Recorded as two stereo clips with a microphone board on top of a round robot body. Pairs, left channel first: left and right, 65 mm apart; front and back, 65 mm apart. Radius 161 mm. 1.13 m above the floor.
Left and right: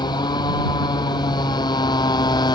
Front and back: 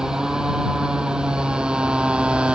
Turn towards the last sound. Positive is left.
turn(degrees=100)